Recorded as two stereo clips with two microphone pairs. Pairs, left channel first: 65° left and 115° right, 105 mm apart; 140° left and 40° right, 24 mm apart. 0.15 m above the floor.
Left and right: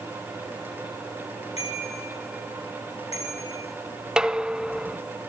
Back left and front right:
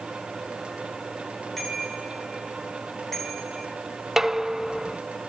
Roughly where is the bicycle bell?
Ahead left.